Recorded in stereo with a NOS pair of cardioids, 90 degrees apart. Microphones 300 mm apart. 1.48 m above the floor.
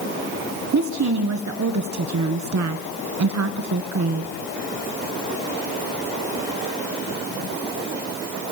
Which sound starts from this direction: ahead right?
A woman speaking, at 0.7 s.